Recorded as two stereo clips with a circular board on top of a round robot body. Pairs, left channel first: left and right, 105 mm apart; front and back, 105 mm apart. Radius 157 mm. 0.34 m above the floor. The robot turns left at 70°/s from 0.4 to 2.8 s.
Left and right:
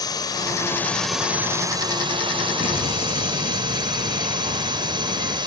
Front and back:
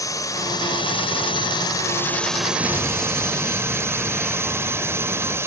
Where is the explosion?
105° left; by 5.4 s 90° left.